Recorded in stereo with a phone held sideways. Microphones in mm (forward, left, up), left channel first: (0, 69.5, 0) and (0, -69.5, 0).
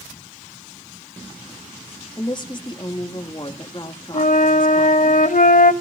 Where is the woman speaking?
35° left (ahead or behind), 1.9 m.